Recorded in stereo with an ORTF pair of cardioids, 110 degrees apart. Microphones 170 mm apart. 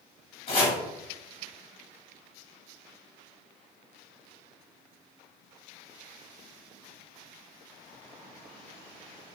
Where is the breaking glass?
No breaking glass in this recording.